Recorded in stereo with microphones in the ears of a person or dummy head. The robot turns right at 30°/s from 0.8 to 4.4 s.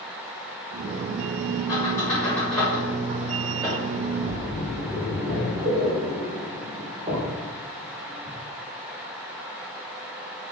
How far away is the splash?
About 0.8 m.